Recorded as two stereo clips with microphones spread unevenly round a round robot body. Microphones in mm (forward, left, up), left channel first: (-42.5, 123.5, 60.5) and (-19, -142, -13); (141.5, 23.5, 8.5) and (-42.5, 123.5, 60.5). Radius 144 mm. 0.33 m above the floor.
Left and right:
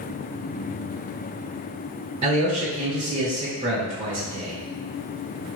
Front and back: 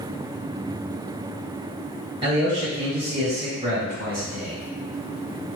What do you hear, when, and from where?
2.2 s a man speaking: 130° right, 1.7 m